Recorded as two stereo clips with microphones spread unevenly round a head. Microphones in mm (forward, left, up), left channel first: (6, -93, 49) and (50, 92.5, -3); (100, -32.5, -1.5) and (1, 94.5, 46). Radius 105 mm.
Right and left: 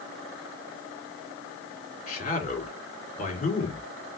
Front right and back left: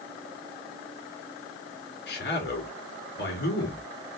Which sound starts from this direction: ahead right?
A man speaking, at 2.1 s.